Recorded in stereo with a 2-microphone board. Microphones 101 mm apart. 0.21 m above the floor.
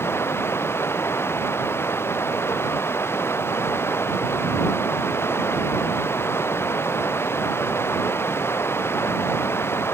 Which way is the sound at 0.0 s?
25° left (ahead or behind).